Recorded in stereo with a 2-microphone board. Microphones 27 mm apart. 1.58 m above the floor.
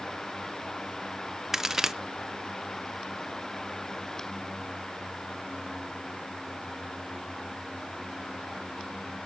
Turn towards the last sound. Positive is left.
turn(degrees=-15)  # may be behind; listen again after turning